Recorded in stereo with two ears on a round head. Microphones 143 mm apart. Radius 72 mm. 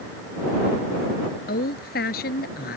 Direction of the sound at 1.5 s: 65° left (ahead or behind).